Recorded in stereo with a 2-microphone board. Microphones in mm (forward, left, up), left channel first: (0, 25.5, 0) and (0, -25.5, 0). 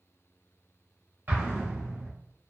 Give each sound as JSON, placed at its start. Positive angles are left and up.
{"t": 1.3, "sound": "an explosion", "side_deg": -45, "distance_m": 1.2}